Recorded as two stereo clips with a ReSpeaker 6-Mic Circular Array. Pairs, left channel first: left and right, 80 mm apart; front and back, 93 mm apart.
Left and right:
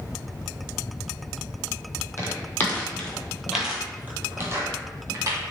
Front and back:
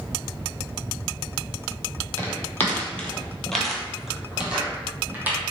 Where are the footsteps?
50° left, 1.3 m; by 5.4 s 115° right, 1.6 m.